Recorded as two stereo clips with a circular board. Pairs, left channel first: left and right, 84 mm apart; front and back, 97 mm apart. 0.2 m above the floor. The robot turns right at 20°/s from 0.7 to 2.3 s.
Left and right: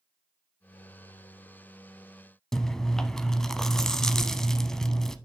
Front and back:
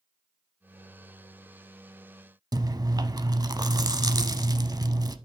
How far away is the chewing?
About 0.6 m.